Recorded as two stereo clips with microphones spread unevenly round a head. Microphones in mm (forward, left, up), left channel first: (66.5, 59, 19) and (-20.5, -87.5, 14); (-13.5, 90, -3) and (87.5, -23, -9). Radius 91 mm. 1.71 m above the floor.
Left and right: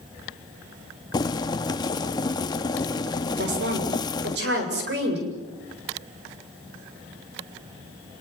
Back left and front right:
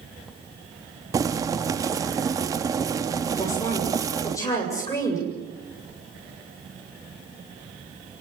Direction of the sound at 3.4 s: 155° right.